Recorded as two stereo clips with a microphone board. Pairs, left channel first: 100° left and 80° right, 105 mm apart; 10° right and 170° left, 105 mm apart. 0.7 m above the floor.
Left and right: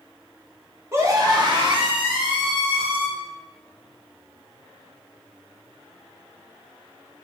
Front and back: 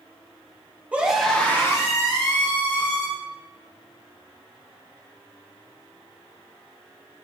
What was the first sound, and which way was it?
A scream, 120° right.